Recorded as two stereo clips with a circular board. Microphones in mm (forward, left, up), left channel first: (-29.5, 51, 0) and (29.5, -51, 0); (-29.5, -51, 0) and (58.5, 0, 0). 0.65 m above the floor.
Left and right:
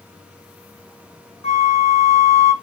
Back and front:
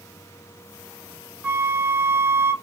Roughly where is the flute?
Left.